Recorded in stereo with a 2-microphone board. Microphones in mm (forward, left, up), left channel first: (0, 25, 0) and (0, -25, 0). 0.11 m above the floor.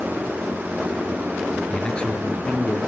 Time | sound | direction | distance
1.7 | a man speaking | 15° left (ahead or behind) | 1.8 m